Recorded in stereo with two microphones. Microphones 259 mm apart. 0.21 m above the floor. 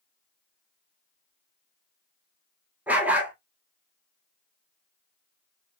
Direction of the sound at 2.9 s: 5° right (ahead or behind).